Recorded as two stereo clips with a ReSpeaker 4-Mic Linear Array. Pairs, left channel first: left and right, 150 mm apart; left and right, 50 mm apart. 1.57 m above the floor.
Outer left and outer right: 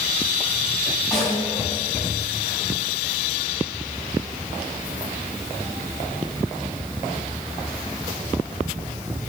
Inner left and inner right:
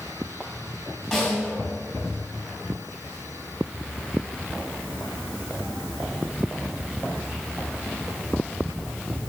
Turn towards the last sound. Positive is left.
turn(degrees=0)  # may be behind; listen again after turning